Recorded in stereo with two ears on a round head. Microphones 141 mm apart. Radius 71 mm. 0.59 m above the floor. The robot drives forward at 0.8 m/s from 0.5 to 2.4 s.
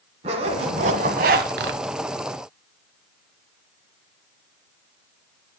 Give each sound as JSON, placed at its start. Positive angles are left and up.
{"t": 0.2, "sound": "a zipper", "side_deg": -40, "distance_m": 1.5}